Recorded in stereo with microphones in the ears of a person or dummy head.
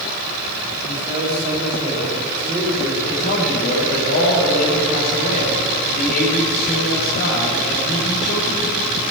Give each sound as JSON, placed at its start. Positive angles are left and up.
{"t": 0.8, "sound": "a man speaking", "side_deg": -20, "distance_m": 6.5}
{"t": 3.0, "sound": "a man speaking", "side_deg": 55, "distance_m": 4.5}